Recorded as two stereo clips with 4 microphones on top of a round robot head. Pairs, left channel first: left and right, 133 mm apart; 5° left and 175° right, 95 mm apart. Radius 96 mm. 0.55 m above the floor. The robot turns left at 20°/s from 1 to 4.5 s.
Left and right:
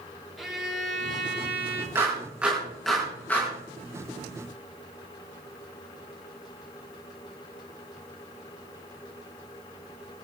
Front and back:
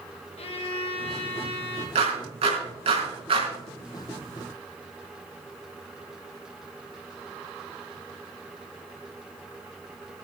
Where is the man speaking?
I don't hear a man speaking.